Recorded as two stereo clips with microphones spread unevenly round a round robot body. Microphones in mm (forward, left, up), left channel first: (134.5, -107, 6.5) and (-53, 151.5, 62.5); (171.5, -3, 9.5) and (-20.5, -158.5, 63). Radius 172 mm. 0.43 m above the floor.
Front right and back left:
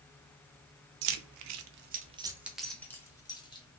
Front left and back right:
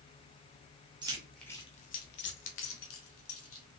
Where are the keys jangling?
140° left, 0.6 m; by 3.7 s 20° left, 1.4 m.